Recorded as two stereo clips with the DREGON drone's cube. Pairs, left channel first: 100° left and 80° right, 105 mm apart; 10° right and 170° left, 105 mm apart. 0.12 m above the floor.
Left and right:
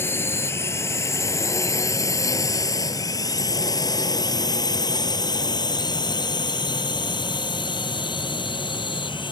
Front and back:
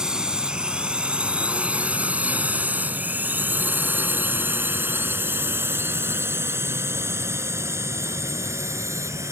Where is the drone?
95° left; by 9.3 s 115° left.